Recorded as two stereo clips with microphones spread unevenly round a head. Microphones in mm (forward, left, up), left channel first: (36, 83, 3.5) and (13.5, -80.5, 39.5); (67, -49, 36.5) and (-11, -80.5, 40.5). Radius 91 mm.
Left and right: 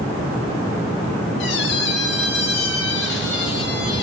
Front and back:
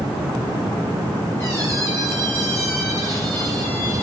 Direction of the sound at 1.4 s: 95° left.